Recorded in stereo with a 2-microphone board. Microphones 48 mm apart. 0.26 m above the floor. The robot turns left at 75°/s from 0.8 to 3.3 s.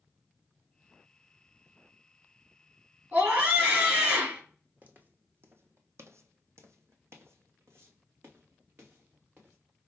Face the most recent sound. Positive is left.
turn(degrees=-40)  # may be behind; listen again after turning